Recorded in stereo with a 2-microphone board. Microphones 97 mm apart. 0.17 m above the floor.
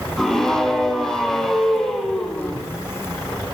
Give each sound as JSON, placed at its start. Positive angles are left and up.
{"t": 0.2, "sound": "a scream", "side_deg": 5, "distance_m": 6.5}